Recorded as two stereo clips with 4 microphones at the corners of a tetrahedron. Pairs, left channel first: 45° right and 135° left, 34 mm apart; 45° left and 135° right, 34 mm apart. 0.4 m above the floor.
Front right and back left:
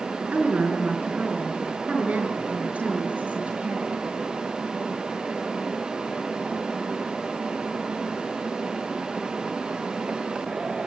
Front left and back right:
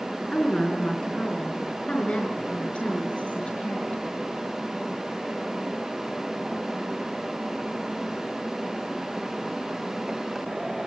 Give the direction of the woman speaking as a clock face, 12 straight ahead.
8 o'clock.